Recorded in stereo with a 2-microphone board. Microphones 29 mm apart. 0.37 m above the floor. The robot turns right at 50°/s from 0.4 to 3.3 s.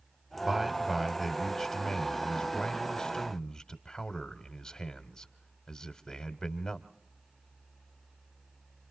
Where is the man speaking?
15° right (ahead or behind), 1.4 m; by 6.9 s 25° left (ahead or behind), 1.4 m.